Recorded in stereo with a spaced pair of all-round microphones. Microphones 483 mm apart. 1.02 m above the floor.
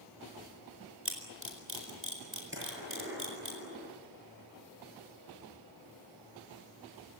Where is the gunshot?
25° right (ahead or behind), 7.5 m.